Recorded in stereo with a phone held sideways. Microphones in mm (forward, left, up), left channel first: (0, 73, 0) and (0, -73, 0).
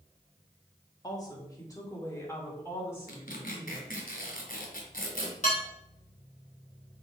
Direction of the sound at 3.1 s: 75° left (ahead or behind).